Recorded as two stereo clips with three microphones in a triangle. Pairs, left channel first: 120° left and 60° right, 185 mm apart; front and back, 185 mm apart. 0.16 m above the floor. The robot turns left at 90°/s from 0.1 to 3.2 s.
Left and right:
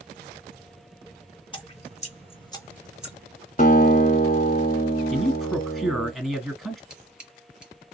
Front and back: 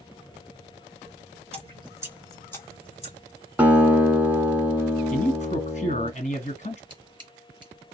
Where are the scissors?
145° right, 1.6 m.